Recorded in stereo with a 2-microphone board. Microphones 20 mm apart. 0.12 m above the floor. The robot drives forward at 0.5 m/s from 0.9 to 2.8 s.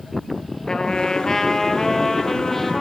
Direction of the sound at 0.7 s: 45° left (ahead or behind).